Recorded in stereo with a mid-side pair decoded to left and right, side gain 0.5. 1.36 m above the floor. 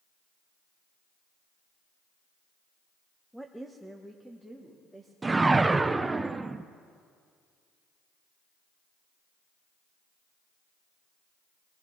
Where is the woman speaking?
Straight ahead, 0.8 m.